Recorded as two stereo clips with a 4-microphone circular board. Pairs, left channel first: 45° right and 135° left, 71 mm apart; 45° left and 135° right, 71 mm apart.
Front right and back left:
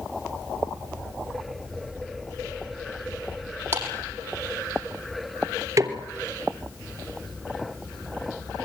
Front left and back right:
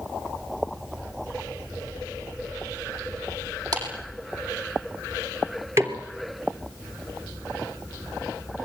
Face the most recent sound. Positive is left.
turn(degrees=175)